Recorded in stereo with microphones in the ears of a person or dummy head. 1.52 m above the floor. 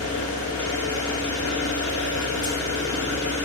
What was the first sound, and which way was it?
An engine running, 40° left (ahead or behind).